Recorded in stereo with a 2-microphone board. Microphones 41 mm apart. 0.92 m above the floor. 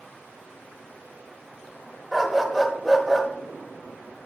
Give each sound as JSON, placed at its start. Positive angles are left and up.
{"t": 2.1, "sound": "a dog barking", "side_deg": 0, "distance_m": 1.5}